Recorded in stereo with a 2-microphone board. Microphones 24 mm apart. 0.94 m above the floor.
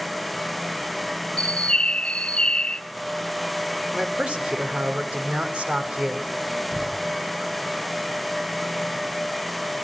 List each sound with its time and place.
1.4 s a bird: 50° left (ahead or behind), 0.5 m
3.9 s a man speaking: 60° right (ahead or behind), 3 m
6.7 s a door slam: 85° right, 5 m